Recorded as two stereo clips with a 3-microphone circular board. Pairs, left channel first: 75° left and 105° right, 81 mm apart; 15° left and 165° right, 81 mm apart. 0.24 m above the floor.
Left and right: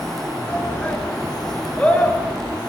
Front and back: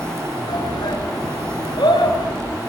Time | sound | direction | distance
0.5 | a shout | 5° left | 3 m